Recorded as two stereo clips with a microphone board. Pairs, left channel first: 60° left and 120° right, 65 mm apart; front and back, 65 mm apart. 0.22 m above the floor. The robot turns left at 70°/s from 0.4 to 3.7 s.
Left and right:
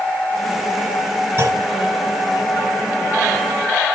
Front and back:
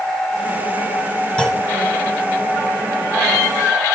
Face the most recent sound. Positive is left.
turn(degrees=130)